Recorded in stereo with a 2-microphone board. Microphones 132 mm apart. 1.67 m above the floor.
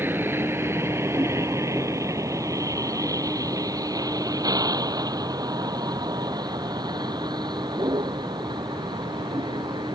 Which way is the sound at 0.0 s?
15° right (ahead or behind).